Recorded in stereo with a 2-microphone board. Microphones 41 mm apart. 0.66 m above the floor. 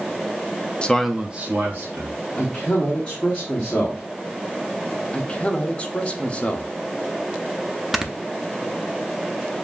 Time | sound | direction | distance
0.8 | a man speaking | 20° left (ahead or behind) | 0.5 m
2.4 | a man speaking | 25° left (ahead or behind) | 1.2 m
5.1 | a man speaking | 25° left (ahead or behind) | 0.8 m
7.9 | snoring | 5° right (ahead or behind) | 0.5 m